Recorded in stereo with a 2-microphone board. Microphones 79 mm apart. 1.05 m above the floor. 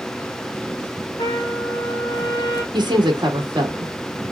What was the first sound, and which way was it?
A trumpet, 60° left (ahead or behind).